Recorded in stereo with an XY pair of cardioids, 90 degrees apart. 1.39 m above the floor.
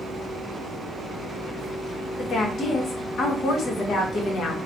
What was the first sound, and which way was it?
A woman speaking, 65° left.